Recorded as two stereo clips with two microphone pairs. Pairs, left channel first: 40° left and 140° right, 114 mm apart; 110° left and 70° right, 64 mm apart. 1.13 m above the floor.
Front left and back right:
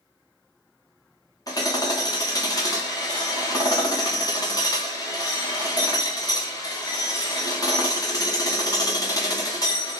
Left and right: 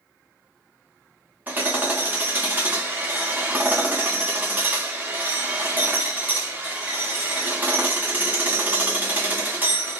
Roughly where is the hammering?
Ahead.